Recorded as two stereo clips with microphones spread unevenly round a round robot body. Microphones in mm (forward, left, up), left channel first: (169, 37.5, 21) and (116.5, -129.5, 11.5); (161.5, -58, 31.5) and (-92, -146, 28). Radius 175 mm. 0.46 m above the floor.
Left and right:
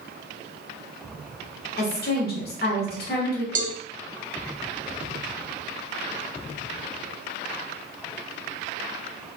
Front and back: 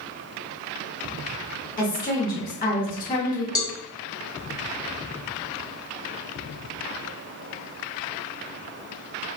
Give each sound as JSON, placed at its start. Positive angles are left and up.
{"t": 1.8, "sound": "a woman speaking", "azimuth_deg": 75, "distance_m": 1.2}
{"t": 3.5, "sound": "a cowbell", "azimuth_deg": -60, "distance_m": 0.8}